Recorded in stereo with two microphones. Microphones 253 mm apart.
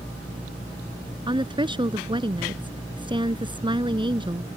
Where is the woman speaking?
20° right (ahead or behind).